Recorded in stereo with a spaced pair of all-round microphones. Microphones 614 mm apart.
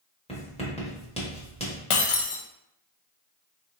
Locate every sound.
0.3 s writing: 10° left (ahead or behind), 1.0 m
1.9 s breaking glass: 55° left (ahead or behind), 0.6 m